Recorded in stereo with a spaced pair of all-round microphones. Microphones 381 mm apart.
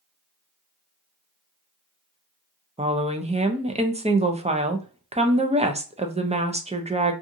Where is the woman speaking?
15° right (ahead or behind), 0.5 m.